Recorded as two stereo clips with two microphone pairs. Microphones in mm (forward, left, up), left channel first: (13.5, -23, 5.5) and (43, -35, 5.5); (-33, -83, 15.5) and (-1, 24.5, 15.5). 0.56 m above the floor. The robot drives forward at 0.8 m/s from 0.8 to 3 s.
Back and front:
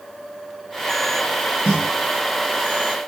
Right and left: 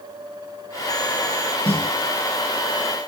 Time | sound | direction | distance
1.6 | a snare drum | 70° right | 7 m